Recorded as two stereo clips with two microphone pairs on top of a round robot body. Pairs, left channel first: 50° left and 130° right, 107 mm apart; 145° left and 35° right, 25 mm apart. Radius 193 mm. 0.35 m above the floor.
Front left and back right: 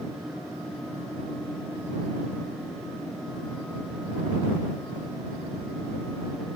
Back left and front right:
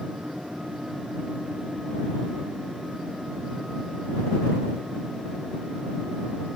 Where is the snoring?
I don't hear snoring.